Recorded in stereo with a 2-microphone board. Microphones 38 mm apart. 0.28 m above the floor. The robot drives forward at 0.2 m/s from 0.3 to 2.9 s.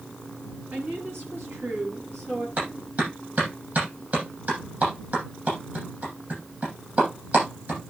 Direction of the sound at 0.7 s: 70° right (ahead or behind).